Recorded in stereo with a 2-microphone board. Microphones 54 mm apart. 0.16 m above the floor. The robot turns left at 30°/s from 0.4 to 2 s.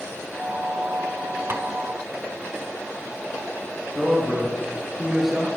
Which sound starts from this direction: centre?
A man speaking, at 4.0 s.